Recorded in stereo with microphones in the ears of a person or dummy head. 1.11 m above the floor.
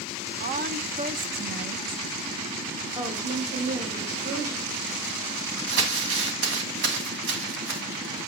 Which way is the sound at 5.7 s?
65° right (ahead or behind).